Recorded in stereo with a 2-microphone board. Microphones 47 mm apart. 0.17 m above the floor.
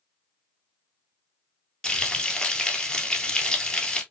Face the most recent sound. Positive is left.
turn(degrees=15)  # may be behind; listen again after turning